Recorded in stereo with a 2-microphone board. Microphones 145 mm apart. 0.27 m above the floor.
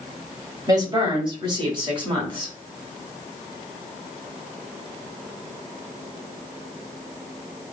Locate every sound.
0.7 s a woman speaking: 25° right (ahead or behind), 1.1 m; by 2.5 s 35° right (ahead or behind), 1.7 m